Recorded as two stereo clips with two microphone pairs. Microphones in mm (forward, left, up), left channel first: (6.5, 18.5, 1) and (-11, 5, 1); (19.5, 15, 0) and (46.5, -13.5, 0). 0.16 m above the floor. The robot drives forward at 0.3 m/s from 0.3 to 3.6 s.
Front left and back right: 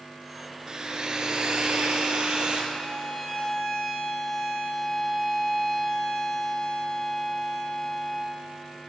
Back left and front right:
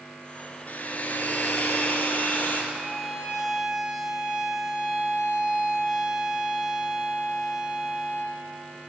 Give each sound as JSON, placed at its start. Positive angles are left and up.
{"t": 0.7, "sound": "a hair dryer", "azimuth_deg": 170, "distance_m": 0.5}
{"t": 2.7, "sound": "a violin", "azimuth_deg": 15, "distance_m": 1.1}